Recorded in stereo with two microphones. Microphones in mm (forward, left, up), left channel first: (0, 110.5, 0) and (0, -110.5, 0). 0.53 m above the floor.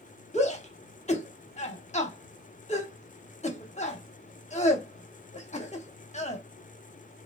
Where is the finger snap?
No finger snap in this recording.